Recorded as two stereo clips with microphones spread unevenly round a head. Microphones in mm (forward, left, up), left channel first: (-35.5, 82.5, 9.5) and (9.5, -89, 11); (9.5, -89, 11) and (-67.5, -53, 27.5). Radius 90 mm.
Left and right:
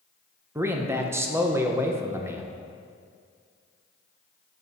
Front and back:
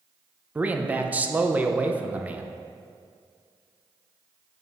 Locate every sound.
0.6 s a man speaking: 145° right, 0.8 m